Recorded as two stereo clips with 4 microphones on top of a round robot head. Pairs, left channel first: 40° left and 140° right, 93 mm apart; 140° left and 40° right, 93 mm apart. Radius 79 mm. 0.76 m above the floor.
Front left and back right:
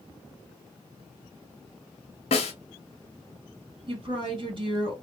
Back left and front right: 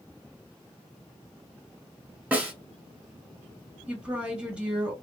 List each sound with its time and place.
2.3 s a snare drum: 35° left, 0.9 m
3.9 s a woman speaking: 120° right, 1.7 m